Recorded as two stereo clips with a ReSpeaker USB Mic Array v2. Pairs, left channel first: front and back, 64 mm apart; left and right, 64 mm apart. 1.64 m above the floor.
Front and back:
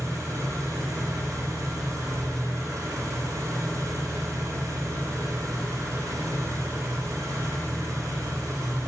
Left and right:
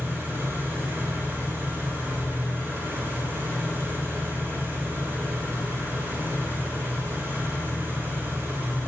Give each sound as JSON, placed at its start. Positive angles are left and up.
{"t": 0.0, "sound": "an engine running", "azimuth_deg": -150, "distance_m": 4.0}